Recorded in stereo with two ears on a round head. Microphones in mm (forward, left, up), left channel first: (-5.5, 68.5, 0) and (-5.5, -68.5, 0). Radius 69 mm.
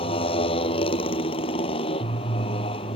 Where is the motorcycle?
40° left (ahead or behind).